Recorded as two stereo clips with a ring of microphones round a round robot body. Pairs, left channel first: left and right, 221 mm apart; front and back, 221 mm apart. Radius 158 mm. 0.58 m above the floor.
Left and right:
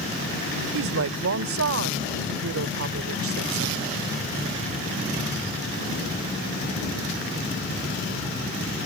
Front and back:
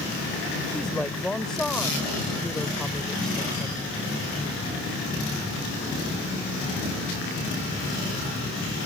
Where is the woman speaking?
90° right.